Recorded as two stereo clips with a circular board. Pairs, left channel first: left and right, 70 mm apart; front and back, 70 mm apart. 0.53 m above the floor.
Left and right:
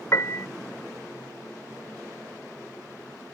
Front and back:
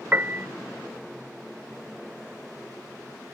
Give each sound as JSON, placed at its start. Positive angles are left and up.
{"t": 0.1, "sound": "a piano", "azimuth_deg": 125}